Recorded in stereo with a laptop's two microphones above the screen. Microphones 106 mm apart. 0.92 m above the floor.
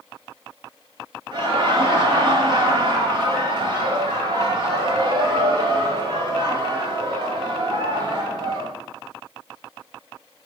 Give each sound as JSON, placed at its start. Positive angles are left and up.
{"t": 1.3, "sound": "laughter", "side_deg": -45, "distance_m": 1.4}